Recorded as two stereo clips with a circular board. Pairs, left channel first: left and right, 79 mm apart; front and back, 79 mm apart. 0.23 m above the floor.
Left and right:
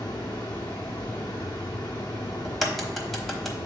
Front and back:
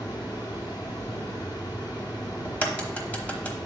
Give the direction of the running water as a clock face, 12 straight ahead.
11 o'clock.